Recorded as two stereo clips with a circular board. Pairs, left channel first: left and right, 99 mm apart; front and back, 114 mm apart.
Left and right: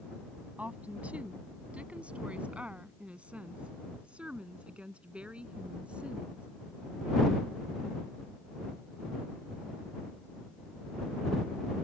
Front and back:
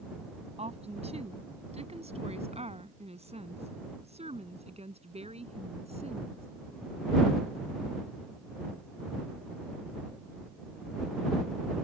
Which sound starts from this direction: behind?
A woman speaking, at 0.6 s.